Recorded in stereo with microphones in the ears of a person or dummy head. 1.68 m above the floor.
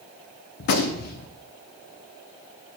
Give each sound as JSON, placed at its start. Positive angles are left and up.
{"t": 0.6, "sound": "a gunshot", "side_deg": 50, "distance_m": 0.6}